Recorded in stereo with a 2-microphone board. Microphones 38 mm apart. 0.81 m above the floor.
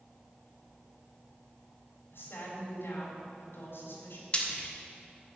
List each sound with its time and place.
2.1 s a woman speaking: 80° left, 4 m
4.3 s frying: 30° left (ahead or behind), 1.5 m